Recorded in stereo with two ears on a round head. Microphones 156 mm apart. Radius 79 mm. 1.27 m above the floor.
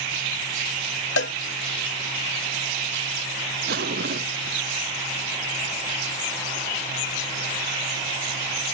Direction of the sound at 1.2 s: 75° left (ahead or behind).